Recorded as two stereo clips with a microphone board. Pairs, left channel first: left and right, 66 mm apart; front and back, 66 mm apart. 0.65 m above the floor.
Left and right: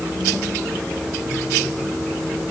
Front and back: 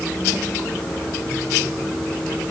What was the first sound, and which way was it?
Only background noise.